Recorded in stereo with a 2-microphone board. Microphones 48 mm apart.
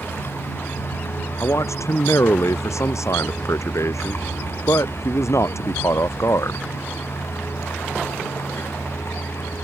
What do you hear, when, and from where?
0.0 s a vehicle: 50° left (ahead or behind); by 9.6 s 60° left (ahead or behind)
1.4 s a man speaking: 80° left